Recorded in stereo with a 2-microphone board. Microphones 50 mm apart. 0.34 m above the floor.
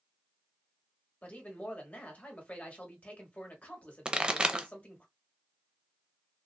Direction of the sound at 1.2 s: 30° left (ahead or behind).